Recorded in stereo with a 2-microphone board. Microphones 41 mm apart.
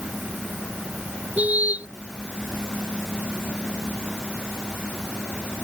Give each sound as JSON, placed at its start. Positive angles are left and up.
{"t": 1.4, "sound": "a car horn", "side_deg": -40}